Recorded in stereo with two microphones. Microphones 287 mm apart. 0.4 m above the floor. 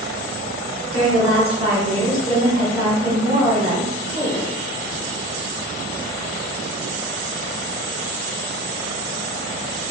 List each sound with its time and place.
0.9 s a woman speaking: 20° right (ahead or behind), 1.0 m